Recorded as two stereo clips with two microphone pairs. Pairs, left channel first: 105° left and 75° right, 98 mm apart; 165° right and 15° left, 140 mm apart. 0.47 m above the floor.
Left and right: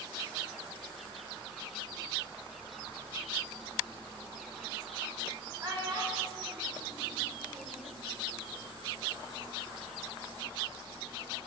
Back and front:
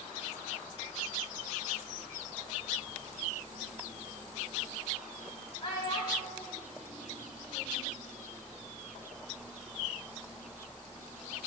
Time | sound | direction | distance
5.6 | a child speaking | 120° right | 1.5 m